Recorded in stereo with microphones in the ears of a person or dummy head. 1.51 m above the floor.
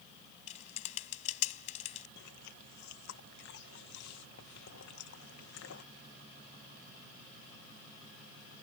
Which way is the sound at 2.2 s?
70° left (ahead or behind).